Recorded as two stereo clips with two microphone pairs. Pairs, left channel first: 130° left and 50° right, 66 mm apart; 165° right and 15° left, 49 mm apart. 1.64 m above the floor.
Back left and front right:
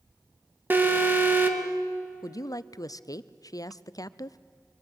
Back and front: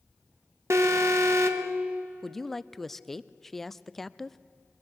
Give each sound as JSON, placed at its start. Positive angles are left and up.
{"t": 0.7, "sound": "an alarm", "azimuth_deg": 10, "distance_m": 1.6}
{"t": 2.2, "sound": "a woman speaking", "azimuth_deg": 105, "distance_m": 0.5}